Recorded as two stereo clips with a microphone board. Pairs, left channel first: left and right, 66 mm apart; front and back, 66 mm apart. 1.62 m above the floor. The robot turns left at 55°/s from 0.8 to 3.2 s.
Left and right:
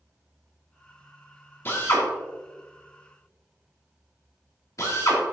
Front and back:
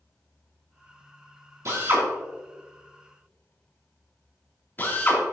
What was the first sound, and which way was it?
A drill, 140° left.